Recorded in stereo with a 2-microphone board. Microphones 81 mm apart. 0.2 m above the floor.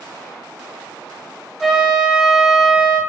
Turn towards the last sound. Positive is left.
turn(degrees=0)  # may be behind; listen again after turning